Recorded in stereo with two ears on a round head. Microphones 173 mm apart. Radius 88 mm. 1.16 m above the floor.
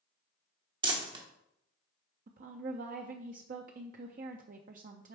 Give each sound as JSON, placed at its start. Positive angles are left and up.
{"t": 0.8, "sound": "crumpling", "side_deg": -25, "distance_m": 1.1}
{"t": 2.3, "sound": "a woman speaking", "side_deg": -45, "distance_m": 0.5}